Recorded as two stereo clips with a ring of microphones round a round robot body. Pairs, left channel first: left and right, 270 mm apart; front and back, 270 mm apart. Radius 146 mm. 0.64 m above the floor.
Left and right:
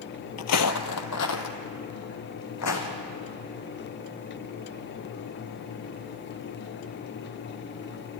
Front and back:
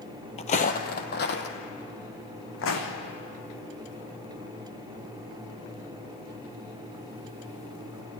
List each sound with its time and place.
0.4 s footsteps: 65° left, 1.0 m; by 2.9 s 50° left, 3 m